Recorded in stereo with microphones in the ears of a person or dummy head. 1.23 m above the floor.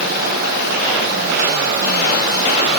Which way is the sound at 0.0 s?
60° right (ahead or behind).